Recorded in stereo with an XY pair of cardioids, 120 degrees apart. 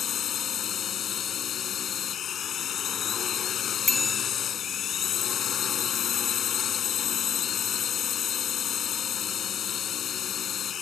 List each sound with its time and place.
0.0 s a drone: 50° left
3.9 s a bicycle bell: 15° left